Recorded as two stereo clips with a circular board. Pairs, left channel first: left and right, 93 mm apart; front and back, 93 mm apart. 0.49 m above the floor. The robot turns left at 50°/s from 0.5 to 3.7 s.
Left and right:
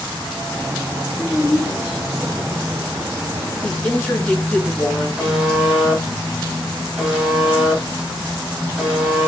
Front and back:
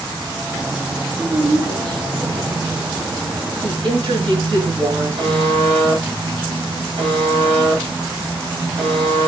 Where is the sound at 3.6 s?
165° left, 3 m; by 5.1 s 160° left, 3 m.